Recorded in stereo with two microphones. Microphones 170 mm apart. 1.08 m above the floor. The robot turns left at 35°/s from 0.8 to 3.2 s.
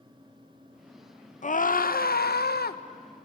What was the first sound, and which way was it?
A scream, 125° left.